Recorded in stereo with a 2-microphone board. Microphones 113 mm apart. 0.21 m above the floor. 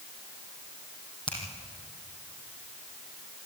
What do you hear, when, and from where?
1.3 s a finger snap: 45° left (ahead or behind), 5.5 m